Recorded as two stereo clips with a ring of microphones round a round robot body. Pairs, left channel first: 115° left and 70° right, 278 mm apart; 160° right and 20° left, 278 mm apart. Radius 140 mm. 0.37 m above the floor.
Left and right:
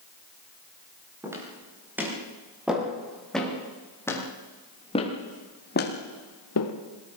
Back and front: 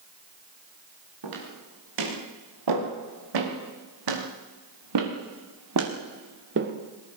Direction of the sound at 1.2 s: 15° left.